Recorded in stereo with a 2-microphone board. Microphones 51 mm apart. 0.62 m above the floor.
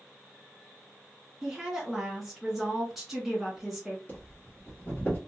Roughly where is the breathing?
Left.